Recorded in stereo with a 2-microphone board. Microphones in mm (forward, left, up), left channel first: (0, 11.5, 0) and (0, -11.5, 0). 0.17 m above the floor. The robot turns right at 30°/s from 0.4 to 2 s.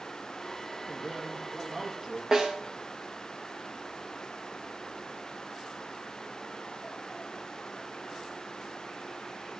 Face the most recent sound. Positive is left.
turn(degrees=-20)  # may be behind; listen again after turning